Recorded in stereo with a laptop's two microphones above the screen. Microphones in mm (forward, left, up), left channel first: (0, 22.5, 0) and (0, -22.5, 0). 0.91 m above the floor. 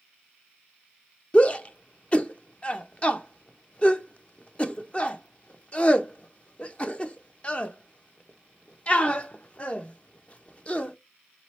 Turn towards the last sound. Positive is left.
turn(degrees=30)  # may be behind; listen again after turning